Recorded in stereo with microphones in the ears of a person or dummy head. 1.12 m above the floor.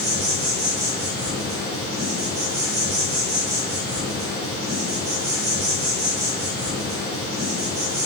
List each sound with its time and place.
0.0 s an insect: 65° right (ahead or behind), 1.1 m